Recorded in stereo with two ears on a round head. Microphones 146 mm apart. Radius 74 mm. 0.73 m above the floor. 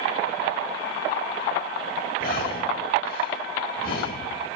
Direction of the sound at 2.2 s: 60° left (ahead or behind).